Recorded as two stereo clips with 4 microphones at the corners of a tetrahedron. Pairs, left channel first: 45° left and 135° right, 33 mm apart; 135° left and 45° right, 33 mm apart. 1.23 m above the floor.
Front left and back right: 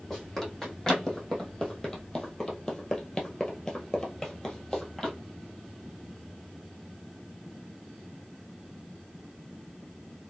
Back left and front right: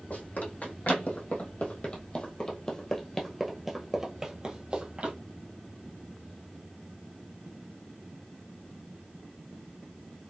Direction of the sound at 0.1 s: 125° left.